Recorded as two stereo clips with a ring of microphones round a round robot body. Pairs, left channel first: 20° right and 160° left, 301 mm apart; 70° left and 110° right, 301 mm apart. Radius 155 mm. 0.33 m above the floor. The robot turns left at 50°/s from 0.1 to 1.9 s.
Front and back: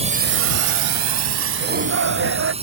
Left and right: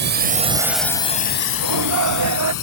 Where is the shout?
135° right; by 2.5 s 150° right.